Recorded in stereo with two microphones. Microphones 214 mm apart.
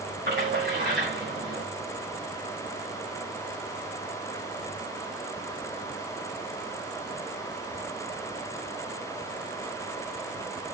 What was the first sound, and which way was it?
A splash, 55° right (ahead or behind).